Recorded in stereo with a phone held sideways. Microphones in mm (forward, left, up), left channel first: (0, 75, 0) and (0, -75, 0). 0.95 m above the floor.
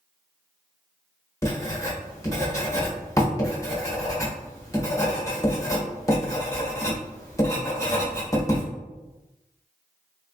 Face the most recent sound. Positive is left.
turn(degrees=20)  # may be behind; listen again after turning